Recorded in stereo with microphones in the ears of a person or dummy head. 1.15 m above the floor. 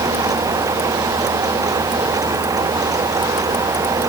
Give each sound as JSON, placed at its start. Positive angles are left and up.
{"t": 0.0, "sound": "a fan", "side_deg": -15}